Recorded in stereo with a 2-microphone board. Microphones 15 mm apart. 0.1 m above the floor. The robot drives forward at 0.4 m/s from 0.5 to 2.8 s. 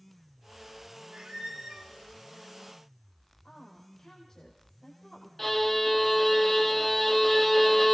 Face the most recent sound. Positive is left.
turn(degrees=15)  # may be behind; listen again after turning